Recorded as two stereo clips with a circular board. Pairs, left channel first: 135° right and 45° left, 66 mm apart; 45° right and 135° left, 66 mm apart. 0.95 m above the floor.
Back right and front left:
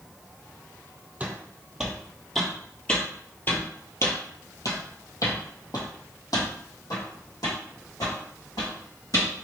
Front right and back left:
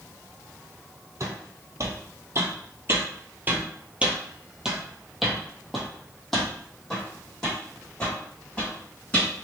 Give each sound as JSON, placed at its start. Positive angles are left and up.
{"t": 1.2, "sound": "footsteps", "azimuth_deg": 115, "distance_m": 1.6}